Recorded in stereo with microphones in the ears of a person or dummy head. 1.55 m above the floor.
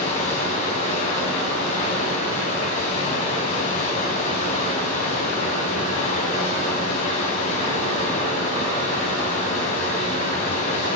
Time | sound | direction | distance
0.0 | running water | 40° left (ahead or behind) | 3.5 m